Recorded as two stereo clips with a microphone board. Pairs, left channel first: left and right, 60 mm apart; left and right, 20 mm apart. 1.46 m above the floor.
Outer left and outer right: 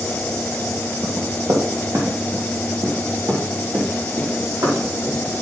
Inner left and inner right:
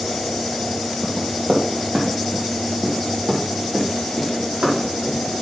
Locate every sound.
1.0 s running footsteps: 65° right (ahead or behind), 3.5 m; by 5.2 s 70° right (ahead or behind), 5.5 m